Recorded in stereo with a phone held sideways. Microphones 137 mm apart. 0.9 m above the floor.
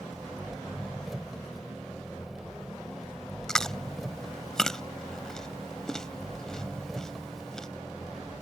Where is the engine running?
Centre (ahead or behind).